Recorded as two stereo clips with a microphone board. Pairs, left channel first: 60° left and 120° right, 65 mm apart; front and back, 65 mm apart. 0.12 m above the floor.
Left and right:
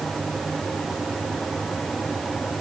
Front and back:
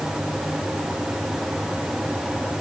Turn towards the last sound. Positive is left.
No sound to turn to.